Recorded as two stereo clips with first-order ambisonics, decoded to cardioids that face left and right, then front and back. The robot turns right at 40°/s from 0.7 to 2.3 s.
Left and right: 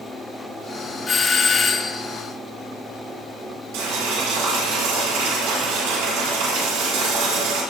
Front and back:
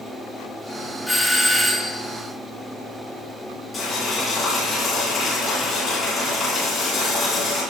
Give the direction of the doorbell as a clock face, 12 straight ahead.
9 o'clock.